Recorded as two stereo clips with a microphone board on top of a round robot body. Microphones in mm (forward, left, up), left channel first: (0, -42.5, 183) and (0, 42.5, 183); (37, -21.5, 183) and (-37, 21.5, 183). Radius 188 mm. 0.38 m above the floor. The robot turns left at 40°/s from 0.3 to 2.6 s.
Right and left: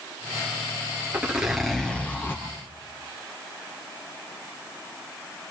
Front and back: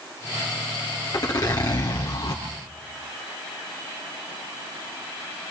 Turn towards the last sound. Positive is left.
turn(degrees=-40)